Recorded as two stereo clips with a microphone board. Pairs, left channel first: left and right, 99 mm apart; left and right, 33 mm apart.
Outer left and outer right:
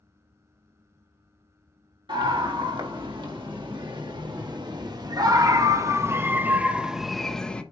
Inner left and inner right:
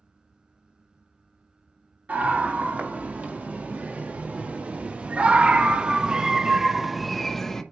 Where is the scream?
65° right (ahead or behind), 2.5 m; by 7.6 s 10° left (ahead or behind), 1.1 m.